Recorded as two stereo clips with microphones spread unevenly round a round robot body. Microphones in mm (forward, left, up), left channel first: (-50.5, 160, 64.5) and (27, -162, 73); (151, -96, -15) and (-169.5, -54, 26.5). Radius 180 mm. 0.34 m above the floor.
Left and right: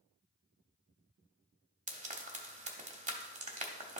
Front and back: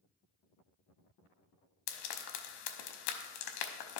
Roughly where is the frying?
Ahead.